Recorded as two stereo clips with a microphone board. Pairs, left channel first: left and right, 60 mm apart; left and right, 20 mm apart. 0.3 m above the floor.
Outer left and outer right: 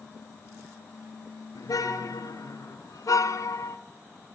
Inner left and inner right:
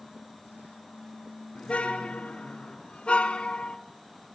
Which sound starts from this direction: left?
A car horn, at 1.6 s.